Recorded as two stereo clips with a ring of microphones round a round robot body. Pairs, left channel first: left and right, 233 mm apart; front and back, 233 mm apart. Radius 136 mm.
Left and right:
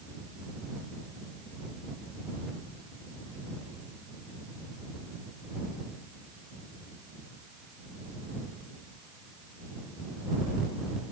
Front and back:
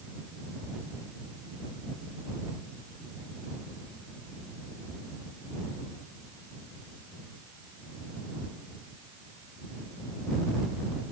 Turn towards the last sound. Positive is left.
No sound to turn to.